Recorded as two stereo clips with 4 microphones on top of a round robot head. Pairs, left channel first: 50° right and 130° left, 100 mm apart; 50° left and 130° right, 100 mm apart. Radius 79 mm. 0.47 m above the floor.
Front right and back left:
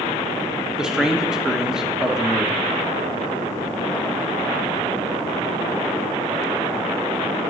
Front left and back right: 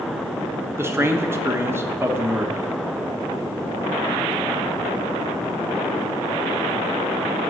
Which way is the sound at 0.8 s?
155° right.